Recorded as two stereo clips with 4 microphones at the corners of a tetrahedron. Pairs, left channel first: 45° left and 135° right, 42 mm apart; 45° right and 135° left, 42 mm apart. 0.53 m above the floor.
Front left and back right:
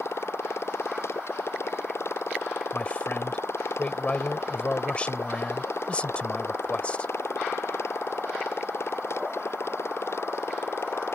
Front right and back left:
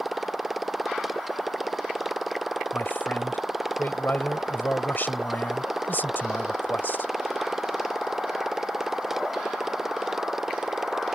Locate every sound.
0.0 s a motorcycle: 45° left; by 11.2 s 55° left
2.7 s a man speaking: 15° right